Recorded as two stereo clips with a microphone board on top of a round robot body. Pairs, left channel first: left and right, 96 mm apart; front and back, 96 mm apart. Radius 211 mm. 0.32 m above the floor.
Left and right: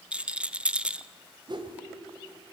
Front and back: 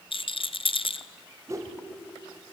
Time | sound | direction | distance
0.1 | a rattle | 10° right | 1.0 m
1.5 | a whoosh | 125° right | 2.5 m